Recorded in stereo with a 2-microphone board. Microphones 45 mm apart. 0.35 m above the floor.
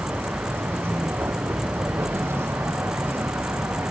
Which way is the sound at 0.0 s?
65° right (ahead or behind).